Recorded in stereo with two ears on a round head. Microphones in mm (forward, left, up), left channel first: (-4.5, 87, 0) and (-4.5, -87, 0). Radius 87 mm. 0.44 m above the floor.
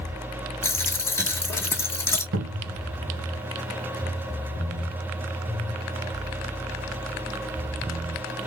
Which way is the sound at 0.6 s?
15° left (ahead or behind).